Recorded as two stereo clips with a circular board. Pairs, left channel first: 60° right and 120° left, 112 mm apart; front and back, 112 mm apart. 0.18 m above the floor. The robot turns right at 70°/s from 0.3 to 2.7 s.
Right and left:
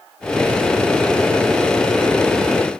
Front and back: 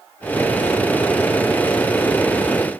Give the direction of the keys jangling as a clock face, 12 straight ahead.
No keys jangling in this recording.